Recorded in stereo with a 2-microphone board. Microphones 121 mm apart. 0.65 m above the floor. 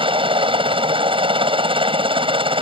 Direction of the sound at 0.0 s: 45° right (ahead or behind).